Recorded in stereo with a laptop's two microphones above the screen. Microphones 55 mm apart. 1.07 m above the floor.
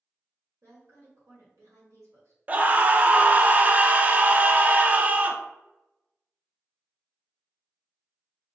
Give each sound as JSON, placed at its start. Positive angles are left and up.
{"t": 0.6, "sound": "a woman speaking", "side_deg": -65, "distance_m": 1.4}
{"t": 2.5, "sound": "a scream", "side_deg": -30, "distance_m": 0.6}